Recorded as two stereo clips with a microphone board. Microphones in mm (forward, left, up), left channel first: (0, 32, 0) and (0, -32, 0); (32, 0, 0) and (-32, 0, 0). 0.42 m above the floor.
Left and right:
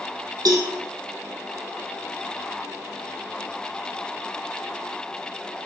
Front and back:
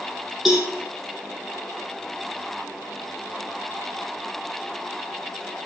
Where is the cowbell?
100° right, 4 m.